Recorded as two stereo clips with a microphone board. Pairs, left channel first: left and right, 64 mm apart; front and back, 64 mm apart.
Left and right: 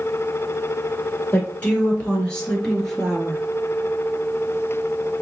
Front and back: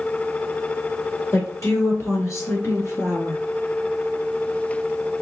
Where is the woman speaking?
30° left, 2.0 m; by 3.4 s 10° right, 1.5 m.